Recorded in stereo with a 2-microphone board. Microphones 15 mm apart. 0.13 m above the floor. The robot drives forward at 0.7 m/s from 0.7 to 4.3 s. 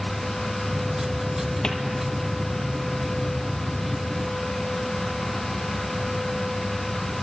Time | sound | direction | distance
1.6 | a cupboard door | 70° left (ahead or behind) | 2 m